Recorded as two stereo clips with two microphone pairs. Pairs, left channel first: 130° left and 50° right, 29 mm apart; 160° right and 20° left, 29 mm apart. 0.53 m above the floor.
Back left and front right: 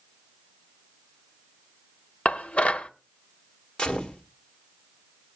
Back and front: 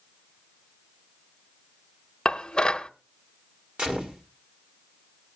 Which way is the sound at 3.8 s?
65° left.